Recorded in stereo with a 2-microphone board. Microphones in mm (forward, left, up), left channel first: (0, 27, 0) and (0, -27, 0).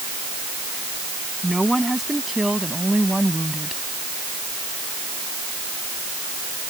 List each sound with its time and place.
1.4 s a woman speaking: centre (ahead or behind); by 3.8 s 5° right (ahead or behind)